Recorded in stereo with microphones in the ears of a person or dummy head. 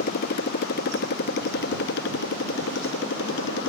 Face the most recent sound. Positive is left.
turn(degrees=65)  # may be behind; listen again after turning